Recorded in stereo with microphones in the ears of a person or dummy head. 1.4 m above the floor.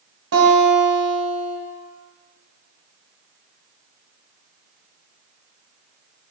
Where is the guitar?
70° right (ahead or behind), 1.2 m.